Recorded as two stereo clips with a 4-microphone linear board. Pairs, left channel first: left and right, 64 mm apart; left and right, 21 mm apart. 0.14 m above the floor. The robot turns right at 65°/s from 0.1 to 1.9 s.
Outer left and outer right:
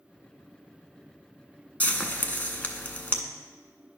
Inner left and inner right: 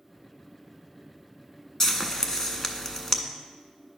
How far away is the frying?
About 0.6 m.